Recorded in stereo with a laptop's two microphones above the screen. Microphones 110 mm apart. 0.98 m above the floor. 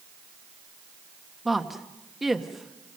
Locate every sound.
1.4 s a woman speaking: centre (ahead or behind), 1.1 m